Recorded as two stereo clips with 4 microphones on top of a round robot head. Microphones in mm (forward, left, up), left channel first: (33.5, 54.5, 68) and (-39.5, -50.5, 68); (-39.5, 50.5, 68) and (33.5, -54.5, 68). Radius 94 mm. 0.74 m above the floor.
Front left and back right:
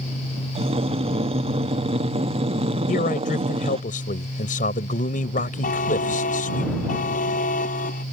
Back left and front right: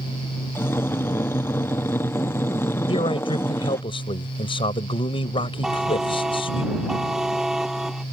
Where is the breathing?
165° right.